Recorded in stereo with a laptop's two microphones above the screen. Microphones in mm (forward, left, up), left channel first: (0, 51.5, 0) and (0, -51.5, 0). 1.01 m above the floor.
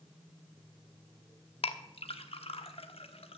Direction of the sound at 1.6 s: 70° left (ahead or behind).